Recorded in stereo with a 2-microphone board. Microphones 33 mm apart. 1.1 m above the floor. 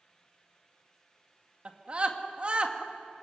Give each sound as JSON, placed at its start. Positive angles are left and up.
{"t": 1.6, "sound": "a scream", "side_deg": -35, "distance_m": 2.0}